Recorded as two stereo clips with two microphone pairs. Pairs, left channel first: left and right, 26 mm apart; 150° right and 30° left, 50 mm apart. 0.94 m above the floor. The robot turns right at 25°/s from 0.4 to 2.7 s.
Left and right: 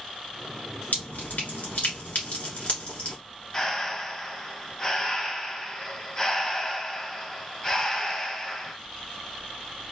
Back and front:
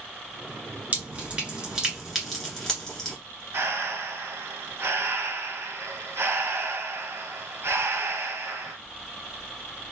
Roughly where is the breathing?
Ahead left.